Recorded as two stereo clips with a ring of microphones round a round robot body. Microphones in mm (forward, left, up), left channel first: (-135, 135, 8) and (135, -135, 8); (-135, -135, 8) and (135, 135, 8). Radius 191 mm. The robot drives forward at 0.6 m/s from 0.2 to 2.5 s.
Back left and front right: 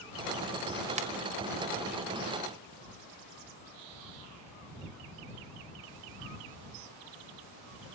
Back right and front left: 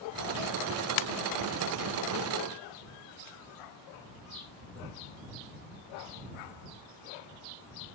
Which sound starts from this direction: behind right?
A ringtone, at 1.0 s.